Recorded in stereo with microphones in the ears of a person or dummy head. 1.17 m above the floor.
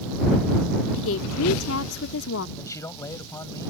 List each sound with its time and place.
1.0 s a woman speaking: 65° left (ahead or behind)
2.6 s a man speaking: 10° left (ahead or behind)